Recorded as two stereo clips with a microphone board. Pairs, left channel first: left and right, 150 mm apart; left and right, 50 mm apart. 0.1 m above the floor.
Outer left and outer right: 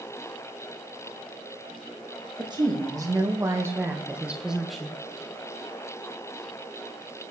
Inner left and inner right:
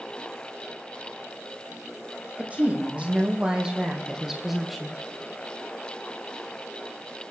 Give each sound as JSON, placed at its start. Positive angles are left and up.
{"t": 2.4, "sound": "a woman speaking", "side_deg": -30, "distance_m": 5.0}